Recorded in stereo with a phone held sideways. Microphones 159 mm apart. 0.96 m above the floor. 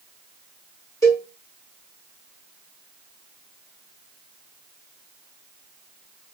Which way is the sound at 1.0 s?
20° left (ahead or behind).